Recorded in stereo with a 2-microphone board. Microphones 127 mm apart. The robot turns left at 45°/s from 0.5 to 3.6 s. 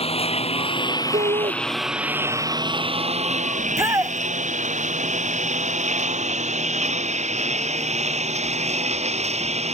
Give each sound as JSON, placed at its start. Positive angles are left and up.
{"t": 0.0, "sound": "a lawn mower", "side_deg": 50}
{"t": 1.1, "sound": "a shout", "side_deg": -70}
{"t": 3.6, "sound": "a shout", "side_deg": -20}